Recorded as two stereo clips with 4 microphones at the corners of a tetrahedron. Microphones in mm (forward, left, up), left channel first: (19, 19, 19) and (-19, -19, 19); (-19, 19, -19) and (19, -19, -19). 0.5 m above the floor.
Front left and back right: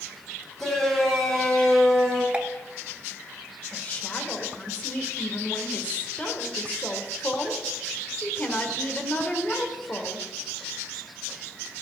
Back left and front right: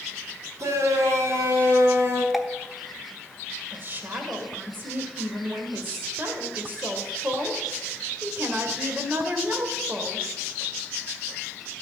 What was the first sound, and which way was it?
A shout, 40° right.